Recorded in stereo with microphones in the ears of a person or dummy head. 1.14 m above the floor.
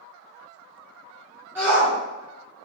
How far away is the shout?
About 0.7 m.